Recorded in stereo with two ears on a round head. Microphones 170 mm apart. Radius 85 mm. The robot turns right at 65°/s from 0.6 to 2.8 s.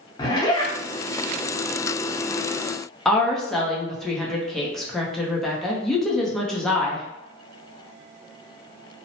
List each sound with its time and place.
0.2 s a zipper: 20° left (ahead or behind), 0.8 m; by 0.7 s 10° left (ahead or behind), 0.8 m
3.0 s a woman speaking: centre (ahead or behind), 0.6 m